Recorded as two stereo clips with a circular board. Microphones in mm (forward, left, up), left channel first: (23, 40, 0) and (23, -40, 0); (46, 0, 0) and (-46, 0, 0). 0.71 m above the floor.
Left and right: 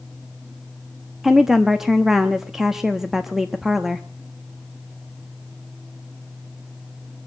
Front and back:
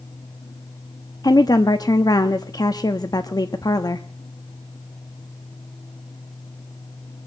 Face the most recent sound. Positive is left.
turn(degrees=-5)